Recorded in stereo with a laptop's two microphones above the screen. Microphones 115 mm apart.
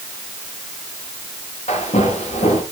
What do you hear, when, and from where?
1.7 s footsteps: 70° left (ahead or behind), 5.5 m